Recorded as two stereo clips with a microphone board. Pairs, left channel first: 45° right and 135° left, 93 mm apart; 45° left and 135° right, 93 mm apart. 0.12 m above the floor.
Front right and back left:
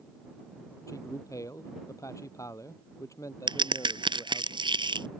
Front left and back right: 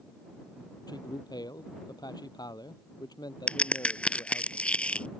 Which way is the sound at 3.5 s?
120° left.